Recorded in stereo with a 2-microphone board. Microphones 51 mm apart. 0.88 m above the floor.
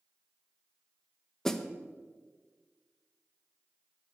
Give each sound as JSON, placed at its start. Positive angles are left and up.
{"t": 1.4, "sound": "a snare drum", "side_deg": 5, "distance_m": 0.8}